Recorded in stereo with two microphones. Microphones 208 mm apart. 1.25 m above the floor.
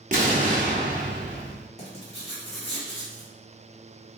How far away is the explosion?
About 0.8 m.